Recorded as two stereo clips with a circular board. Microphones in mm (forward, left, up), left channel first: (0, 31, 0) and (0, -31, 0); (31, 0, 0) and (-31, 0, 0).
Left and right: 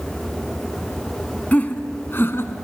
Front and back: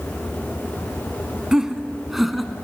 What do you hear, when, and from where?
1.5 s laughter: 115° left, 1.2 m; by 2.5 s 90° left, 1.5 m